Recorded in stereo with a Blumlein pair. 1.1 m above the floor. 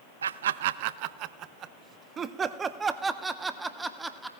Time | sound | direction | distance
0.2 | laughter | 70° right | 0.8 m